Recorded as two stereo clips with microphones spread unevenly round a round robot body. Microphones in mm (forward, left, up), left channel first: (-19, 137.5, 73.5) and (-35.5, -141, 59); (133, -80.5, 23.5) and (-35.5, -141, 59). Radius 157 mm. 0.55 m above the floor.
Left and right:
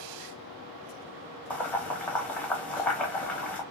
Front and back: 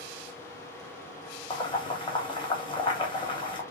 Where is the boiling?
Straight ahead, 1.1 m.